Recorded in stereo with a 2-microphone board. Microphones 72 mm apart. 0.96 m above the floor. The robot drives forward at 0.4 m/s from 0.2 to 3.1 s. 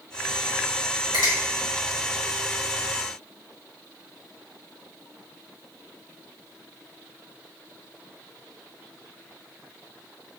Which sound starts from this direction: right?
A finger snap, at 1.1 s.